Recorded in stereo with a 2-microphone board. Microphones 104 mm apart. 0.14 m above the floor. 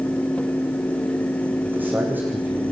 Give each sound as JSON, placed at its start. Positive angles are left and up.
{"t": 1.6, "sound": "a man speaking", "side_deg": -20, "distance_m": 8.0}